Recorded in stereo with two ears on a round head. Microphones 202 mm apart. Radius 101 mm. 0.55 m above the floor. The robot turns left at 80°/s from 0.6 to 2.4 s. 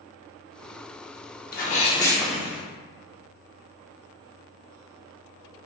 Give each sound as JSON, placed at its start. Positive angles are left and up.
{"t": 1.5, "sound": "a sneeze", "azimuth_deg": 60, "distance_m": 0.9}